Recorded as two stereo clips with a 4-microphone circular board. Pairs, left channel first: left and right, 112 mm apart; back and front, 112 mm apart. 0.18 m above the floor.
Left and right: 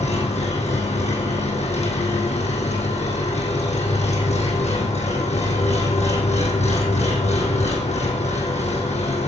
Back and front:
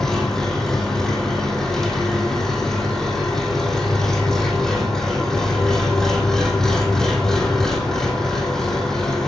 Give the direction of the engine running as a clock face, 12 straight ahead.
9 o'clock.